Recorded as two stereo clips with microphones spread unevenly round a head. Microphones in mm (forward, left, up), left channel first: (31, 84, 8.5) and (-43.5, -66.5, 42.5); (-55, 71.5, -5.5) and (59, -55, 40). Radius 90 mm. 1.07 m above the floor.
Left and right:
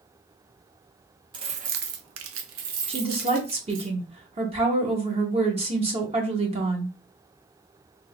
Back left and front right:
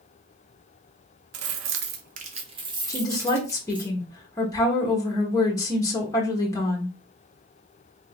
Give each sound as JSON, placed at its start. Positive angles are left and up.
{"t": 1.3, "sound": "keys jangling", "azimuth_deg": -50, "distance_m": 0.5}
{"t": 2.9, "sound": "a woman speaking", "azimuth_deg": -175, "distance_m": 1.1}